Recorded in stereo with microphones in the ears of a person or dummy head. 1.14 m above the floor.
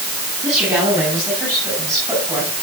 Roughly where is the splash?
I don't hear a splash.